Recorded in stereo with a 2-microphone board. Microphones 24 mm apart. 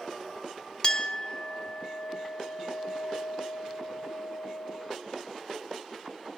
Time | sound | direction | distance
0.8 | a clink | 35° left (ahead or behind) | 1.1 m